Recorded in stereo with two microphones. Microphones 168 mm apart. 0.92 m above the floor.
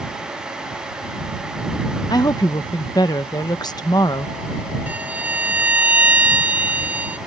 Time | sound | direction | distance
2.1 | a woman speaking | 25° left (ahead or behind) | ?
4.9 | a violin | 10° right (ahead or behind) | ?